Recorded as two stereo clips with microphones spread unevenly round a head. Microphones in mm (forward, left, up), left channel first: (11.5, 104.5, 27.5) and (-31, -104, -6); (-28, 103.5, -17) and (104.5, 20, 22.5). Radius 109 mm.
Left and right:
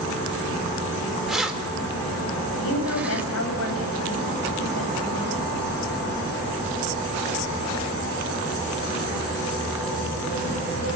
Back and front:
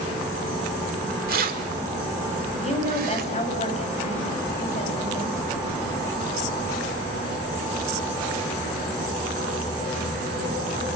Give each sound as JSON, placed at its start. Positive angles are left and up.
{"t": 1.3, "sound": "keys jangling", "azimuth_deg": -10, "distance_m": 3.5}
{"t": 2.6, "sound": "a woman speaking", "azimuth_deg": 100, "distance_m": 8.5}